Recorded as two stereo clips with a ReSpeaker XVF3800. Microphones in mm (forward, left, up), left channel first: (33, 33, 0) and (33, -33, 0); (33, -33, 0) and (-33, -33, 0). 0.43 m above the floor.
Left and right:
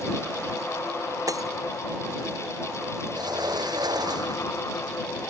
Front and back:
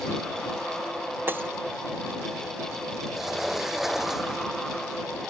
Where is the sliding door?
95° right.